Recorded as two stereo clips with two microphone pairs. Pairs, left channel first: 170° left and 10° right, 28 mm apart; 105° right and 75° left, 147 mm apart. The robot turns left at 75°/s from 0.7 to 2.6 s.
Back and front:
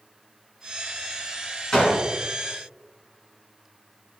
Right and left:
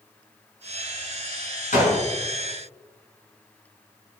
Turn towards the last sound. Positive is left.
turn(degrees=165)